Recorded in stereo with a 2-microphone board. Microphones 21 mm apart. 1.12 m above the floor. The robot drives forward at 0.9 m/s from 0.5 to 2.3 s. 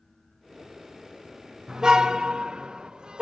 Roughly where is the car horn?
Right.